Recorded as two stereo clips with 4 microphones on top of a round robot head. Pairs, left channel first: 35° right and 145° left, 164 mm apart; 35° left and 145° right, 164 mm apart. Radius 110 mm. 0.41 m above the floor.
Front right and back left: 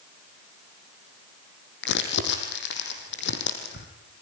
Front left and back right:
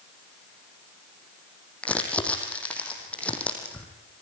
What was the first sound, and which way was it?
Crumpling, 45° right.